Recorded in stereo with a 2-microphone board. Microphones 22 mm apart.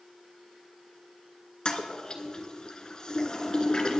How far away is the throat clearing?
No throat clearing in this recording.